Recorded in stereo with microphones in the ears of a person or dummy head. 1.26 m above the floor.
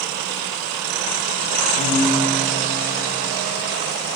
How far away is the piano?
About 3.5 m.